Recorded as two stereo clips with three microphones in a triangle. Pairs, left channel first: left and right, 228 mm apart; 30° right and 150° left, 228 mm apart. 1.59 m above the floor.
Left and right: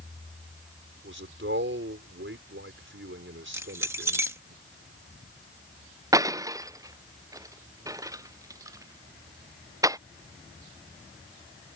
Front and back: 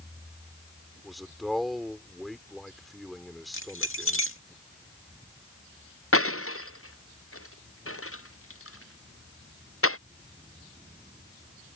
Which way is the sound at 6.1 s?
15° right.